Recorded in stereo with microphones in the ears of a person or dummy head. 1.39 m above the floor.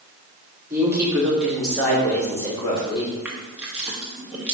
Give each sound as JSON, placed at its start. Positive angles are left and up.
{"t": 0.7, "sound": "a woman speaking", "side_deg": -15, "distance_m": 3.0}
{"t": 3.2, "sound": "crushing", "side_deg": -10, "distance_m": 1.4}